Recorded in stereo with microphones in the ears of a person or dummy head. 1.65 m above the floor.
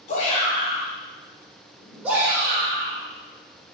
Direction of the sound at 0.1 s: 45° left (ahead or behind).